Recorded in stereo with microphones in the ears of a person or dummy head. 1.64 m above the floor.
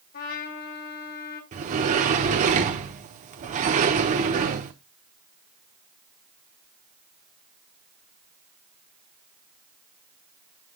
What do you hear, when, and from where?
0.1 s a trumpet: 50° left (ahead or behind), 2 m
1.5 s a sliding door: 40° right (ahead or behind), 1.0 m